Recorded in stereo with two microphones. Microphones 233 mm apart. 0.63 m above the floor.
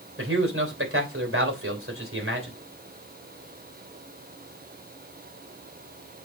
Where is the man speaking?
60° right (ahead or behind), 3 m.